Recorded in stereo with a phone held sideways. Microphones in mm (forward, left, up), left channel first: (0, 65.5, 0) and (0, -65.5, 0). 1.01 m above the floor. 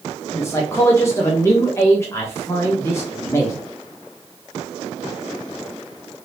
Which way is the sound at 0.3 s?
20° left (ahead or behind).